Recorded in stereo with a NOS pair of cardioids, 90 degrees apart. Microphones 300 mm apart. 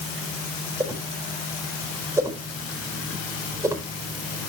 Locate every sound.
0.8 s a whoosh: 10° right, 4.5 m